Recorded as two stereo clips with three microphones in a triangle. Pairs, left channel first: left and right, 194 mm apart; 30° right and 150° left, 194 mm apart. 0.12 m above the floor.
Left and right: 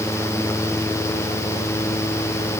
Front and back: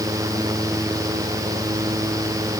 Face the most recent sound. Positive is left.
No sound to turn to.